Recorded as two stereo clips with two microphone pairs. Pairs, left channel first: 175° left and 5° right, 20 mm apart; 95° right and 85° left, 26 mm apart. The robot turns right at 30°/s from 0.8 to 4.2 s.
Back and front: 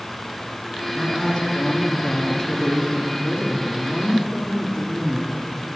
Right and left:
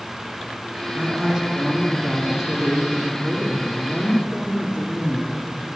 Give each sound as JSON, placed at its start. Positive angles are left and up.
{"t": 0.9, "sound": "a woman speaking", "azimuth_deg": 145, "distance_m": 2.0}